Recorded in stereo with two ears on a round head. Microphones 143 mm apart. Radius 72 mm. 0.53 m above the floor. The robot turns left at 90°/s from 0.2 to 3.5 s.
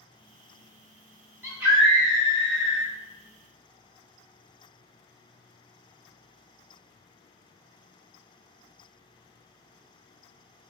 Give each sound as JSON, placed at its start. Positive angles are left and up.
{"t": 1.4, "sound": "a scream", "azimuth_deg": -135, "distance_m": 1.8}